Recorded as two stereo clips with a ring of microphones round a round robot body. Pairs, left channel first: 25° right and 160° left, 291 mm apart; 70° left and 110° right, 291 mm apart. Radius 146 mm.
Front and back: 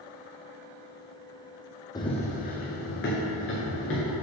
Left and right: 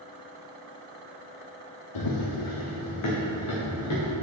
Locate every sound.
1.9 s running footsteps: 55° left, 1.1 m; by 4.1 s 30° left, 3.5 m